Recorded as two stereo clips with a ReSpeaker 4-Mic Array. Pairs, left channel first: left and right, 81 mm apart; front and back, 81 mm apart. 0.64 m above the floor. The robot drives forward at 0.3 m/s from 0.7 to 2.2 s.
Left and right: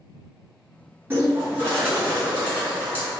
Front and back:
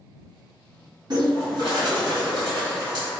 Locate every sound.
1.1 s a bird: 150° right, 1.8 m; by 3.1 s 155° right, 2 m